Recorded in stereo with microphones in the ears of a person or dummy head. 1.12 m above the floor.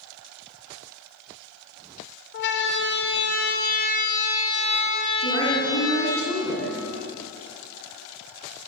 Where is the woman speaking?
65° left (ahead or behind), 8.5 m.